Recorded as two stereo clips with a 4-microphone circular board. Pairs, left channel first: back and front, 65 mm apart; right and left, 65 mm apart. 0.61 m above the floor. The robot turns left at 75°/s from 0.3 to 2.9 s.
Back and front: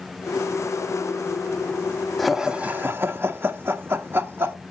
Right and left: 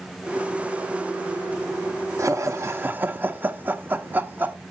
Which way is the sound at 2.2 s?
95° left.